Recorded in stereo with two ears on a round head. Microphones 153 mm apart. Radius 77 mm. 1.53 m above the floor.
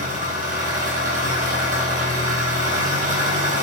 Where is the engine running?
50° right (ahead or behind), 5 m.